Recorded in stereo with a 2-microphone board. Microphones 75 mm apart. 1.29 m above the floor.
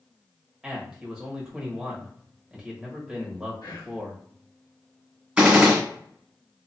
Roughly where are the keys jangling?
I don't hear keys jangling.